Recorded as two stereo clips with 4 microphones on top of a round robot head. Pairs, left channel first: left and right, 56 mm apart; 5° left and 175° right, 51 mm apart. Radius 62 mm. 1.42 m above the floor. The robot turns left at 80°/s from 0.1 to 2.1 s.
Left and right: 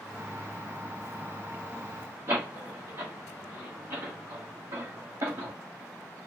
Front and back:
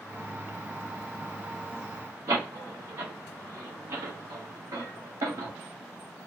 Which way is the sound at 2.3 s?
140° right.